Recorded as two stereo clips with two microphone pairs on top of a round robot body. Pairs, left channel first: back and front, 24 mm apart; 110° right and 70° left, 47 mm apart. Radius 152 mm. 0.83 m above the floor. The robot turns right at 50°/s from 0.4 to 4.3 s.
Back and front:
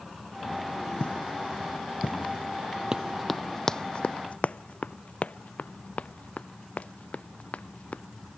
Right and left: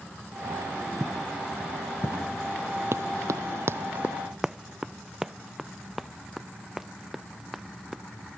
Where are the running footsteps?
50° left; by 8.0 s 155° left.